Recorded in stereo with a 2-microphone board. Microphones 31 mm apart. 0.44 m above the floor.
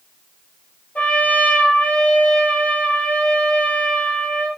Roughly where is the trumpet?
Left.